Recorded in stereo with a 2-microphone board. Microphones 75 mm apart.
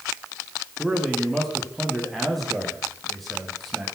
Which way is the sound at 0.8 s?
Centre (ahead or behind).